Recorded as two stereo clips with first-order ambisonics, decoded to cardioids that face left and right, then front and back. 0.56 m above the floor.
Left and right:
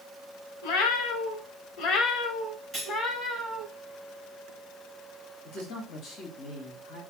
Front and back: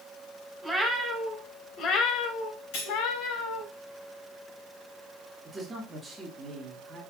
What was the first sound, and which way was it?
A cat meowing, 85° left.